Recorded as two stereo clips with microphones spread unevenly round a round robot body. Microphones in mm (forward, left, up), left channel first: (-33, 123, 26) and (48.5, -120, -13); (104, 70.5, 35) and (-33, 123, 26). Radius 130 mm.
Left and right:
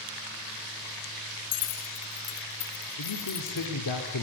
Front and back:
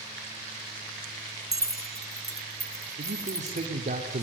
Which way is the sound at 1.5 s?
90° left.